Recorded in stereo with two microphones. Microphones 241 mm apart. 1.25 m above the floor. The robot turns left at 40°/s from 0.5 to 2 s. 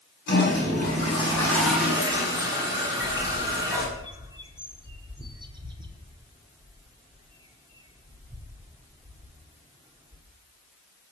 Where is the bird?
15° right (ahead or behind), 1.8 m.